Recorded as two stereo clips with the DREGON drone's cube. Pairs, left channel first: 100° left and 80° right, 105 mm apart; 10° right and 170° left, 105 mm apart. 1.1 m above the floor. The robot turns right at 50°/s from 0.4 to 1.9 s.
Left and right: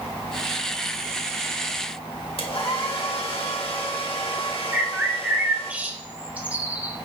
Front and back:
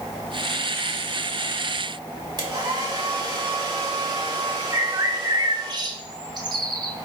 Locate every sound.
2.4 s a hair dryer: 120° left, 1.7 m
4.7 s a bird: 150° right, 1.1 m